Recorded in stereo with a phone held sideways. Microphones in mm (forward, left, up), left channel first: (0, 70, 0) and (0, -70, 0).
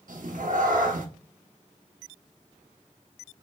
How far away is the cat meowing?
About 1.0 m.